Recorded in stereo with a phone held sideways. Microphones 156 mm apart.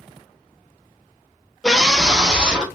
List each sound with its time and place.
1.6 s a scream: 5° left (ahead or behind), 0.6 m; by 2.6 s 5° right (ahead or behind), 1.2 m